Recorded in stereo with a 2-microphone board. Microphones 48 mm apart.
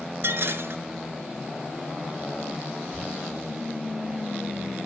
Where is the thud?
50° left (ahead or behind), 7 m.